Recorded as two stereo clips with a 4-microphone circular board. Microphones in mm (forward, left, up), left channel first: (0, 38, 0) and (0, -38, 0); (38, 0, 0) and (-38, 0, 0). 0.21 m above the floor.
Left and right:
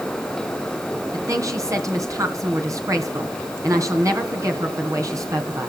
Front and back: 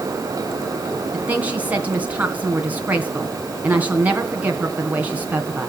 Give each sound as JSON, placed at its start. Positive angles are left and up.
{"t": 1.1, "sound": "a woman speaking", "azimuth_deg": -115, "distance_m": 2.5}